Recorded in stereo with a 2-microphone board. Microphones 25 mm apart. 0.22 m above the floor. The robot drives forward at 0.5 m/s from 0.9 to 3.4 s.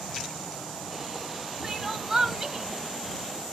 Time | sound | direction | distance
1.6 | crying | 5° right (ahead or behind) | 0.8 m